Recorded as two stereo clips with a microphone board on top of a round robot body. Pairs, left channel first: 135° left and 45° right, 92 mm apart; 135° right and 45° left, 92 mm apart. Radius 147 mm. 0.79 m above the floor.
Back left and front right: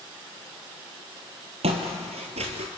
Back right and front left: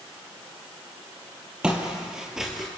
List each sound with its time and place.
1.6 s footsteps: 35° right, 1.7 m; by 2.7 s 45° right, 1.2 m